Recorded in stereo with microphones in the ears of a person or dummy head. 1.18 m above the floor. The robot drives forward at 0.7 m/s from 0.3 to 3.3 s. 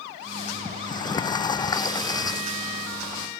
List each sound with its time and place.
0.7 s a sliding door: 25° left (ahead or behind); by 3.3 s 20° left (ahead or behind)